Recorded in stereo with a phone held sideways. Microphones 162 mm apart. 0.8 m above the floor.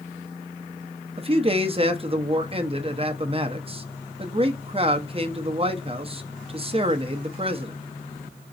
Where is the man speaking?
35° right (ahead or behind), 0.8 m.